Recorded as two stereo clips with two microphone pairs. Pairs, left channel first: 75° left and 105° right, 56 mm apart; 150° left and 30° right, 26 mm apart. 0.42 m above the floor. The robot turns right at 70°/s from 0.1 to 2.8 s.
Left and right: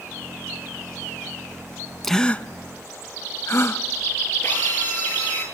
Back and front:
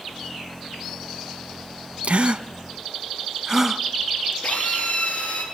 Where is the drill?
135° left, 9 m.